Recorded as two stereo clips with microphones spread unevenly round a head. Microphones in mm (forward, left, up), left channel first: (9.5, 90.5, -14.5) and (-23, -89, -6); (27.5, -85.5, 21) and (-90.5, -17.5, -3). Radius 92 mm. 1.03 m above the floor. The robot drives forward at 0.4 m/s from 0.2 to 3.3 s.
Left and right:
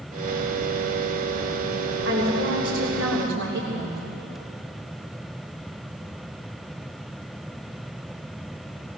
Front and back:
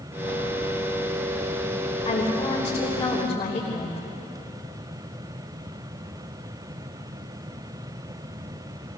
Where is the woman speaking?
85° right, 3 m; by 4.0 s 95° right, 3 m.